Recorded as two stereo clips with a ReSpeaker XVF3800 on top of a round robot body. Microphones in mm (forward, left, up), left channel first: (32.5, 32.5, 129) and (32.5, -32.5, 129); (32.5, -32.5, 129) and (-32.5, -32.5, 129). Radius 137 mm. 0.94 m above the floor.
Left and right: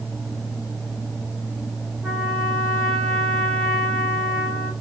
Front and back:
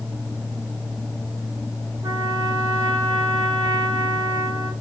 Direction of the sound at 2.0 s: 170° right.